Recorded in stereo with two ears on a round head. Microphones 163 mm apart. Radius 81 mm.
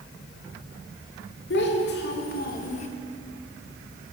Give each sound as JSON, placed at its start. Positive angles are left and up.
{"t": 1.5, "sound": "a child speaking", "side_deg": 65, "distance_m": 1.5}